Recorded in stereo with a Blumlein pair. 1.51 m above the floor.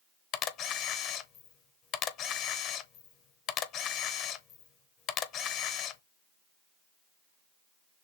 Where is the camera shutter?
35° left, 0.7 m.